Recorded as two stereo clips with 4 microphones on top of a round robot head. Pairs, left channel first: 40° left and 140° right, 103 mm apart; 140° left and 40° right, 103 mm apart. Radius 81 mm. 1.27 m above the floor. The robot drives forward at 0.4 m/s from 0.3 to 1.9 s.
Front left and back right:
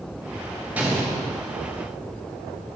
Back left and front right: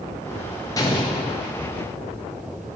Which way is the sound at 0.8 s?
155° left.